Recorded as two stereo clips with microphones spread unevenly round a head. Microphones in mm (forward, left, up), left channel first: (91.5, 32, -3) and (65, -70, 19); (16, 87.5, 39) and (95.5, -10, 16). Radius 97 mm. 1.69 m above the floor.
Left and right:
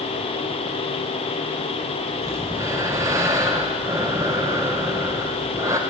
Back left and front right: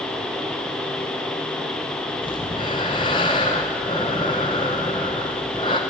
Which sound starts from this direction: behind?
Breathing, at 2.2 s.